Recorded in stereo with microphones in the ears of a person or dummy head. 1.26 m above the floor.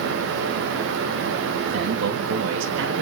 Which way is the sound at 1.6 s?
65° right (ahead or behind).